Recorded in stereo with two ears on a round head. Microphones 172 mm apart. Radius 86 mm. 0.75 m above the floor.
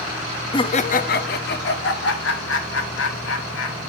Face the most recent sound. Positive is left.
turn(degrees=70)  # may be behind; listen again after turning